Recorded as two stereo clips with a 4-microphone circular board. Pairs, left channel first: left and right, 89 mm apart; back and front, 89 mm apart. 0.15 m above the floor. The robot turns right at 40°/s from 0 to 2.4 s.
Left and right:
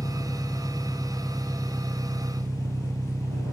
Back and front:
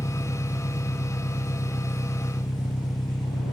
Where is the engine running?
130° left; by 3.5 s 135° right.